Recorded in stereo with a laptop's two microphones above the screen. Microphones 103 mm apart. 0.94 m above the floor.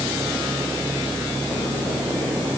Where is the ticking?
No ticking in this recording.